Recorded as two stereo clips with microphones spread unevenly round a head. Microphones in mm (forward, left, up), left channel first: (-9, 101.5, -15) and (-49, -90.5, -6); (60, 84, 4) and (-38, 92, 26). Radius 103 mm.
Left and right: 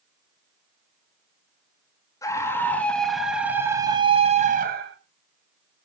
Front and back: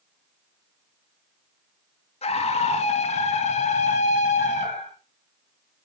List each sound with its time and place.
2.2 s a scream: straight ahead, 2.5 m; by 5.0 s 60° right, 1.7 m